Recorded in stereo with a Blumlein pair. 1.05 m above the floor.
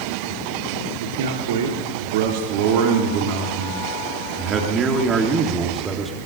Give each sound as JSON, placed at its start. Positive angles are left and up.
{"t": 1.0, "sound": "a man speaking", "azimuth_deg": -60, "distance_m": 3.5}